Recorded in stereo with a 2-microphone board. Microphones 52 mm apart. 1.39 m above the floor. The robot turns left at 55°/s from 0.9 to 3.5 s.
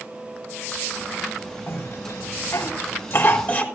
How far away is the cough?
About 4 m.